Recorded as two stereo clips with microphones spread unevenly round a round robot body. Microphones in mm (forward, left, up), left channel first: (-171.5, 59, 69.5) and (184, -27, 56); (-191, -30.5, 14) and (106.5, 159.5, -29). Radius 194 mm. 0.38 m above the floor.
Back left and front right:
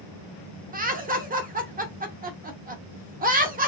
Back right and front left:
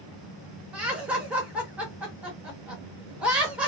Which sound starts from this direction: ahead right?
Laughter, at 0.7 s.